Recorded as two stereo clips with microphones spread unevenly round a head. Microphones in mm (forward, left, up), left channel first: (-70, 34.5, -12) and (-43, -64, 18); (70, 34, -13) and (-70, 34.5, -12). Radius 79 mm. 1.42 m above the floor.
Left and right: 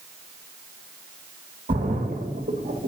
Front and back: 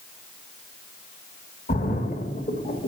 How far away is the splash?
About 1.8 m.